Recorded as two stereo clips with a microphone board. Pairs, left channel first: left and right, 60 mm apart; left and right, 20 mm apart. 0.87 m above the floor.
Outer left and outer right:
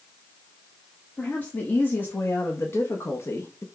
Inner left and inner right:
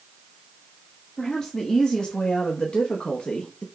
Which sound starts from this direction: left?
A woman speaking, at 1.2 s.